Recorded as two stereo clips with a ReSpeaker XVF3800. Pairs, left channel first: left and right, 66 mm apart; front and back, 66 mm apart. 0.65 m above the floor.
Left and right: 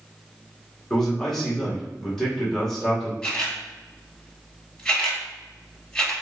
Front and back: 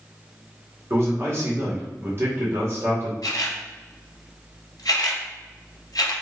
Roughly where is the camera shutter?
Ahead.